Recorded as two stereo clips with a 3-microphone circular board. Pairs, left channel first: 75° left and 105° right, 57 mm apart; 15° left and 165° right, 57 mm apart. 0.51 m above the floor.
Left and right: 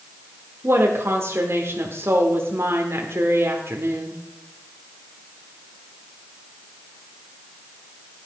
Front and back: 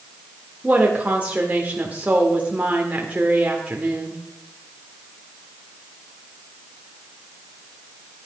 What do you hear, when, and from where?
0.6 s a woman speaking: 110° right, 1.5 m